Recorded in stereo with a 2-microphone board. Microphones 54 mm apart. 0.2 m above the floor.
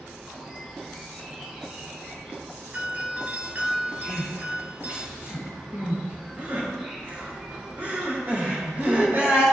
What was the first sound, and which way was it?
An insect, 20° right (ahead or behind).